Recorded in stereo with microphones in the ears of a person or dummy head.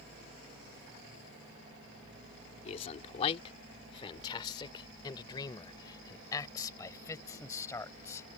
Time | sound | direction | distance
2.6 | a man speaking | 35° left (ahead or behind) | ?